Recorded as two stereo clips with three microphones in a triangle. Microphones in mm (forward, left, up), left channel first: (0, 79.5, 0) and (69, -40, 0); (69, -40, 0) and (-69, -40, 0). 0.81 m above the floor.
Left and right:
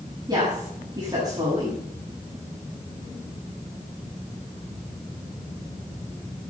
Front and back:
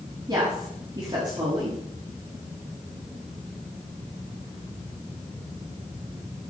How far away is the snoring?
No snoring in this recording.